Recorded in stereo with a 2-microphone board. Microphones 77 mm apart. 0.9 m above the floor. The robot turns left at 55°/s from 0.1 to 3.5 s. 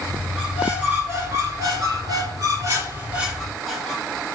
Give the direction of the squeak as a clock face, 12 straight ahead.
12 o'clock.